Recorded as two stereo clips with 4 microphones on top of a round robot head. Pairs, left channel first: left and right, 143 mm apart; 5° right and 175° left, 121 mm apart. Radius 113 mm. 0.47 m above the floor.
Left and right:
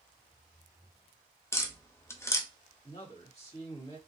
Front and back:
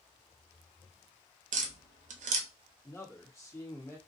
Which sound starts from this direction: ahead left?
A man speaking, at 2.8 s.